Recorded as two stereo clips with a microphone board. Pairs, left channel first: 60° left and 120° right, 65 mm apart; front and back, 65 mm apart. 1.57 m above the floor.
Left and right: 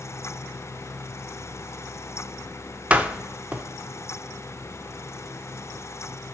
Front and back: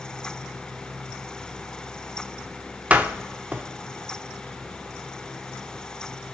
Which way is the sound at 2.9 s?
155° right.